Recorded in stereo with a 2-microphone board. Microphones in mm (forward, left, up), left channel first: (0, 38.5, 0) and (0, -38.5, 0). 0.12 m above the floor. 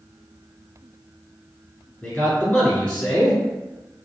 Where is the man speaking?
10° left (ahead or behind), 1.3 m.